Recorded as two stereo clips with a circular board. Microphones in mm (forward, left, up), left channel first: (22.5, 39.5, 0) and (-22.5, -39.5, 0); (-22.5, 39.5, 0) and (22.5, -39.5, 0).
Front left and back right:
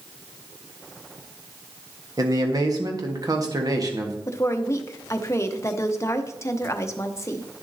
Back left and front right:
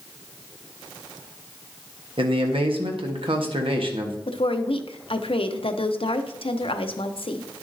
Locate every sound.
2.2 s a man speaking: 75° right, 1.4 m
4.3 s a woman speaking: 120° left, 0.7 m